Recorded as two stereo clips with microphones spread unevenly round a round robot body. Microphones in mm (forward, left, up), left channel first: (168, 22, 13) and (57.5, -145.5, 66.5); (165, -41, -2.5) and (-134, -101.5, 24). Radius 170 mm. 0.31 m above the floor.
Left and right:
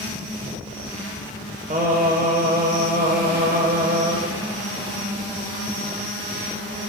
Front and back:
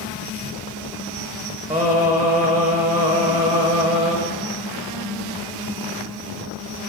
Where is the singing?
120° right, 1.2 m.